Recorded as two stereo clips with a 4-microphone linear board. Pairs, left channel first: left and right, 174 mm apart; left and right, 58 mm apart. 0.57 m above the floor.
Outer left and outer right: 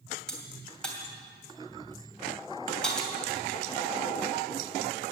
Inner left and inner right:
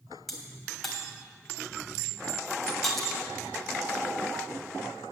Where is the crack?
5° left (ahead or behind), 3 m.